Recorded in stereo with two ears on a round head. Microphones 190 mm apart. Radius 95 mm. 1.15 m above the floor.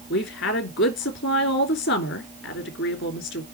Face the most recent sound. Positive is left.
turn(degrees=55)  # may be behind; listen again after turning